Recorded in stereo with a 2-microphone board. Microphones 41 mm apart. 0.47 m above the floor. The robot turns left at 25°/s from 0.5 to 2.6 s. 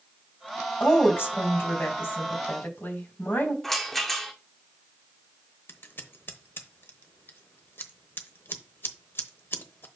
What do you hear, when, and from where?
0.8 s a woman speaking: 120° left, 2.5 m; by 3.5 s 75° left, 2.5 m
3.6 s a rattle: 5° left (ahead or behind), 1.4 m
5.7 s scissors: 60° left (ahead or behind), 0.9 m